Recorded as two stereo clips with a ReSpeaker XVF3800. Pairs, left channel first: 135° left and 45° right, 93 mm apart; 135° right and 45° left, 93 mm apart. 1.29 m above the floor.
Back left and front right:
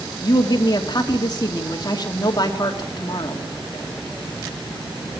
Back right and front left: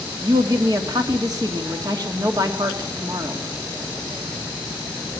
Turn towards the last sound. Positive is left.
turn(degrees=90)